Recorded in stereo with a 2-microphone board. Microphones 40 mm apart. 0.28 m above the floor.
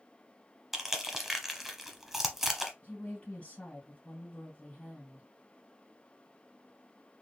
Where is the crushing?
5° right (ahead or behind), 0.8 m.